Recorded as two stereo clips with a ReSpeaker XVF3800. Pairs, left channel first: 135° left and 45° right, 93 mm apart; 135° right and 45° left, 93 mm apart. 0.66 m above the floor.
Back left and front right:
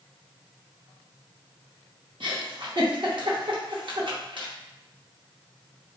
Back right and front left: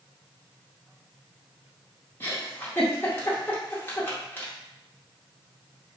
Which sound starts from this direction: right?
A giggle, at 2.2 s.